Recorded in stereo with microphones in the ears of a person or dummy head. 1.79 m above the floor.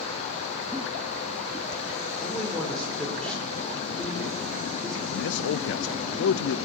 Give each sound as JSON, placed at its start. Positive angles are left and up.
{"t": 0.7, "sound": "a giggle", "side_deg": -10, "distance_m": 3.5}
{"t": 2.2, "sound": "a man speaking", "side_deg": 0, "distance_m": 6.5}
{"t": 5.1, "sound": "a man speaking", "side_deg": 65, "distance_m": 0.7}